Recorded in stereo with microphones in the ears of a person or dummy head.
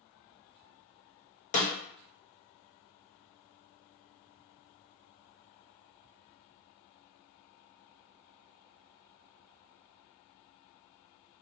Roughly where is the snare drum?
Left.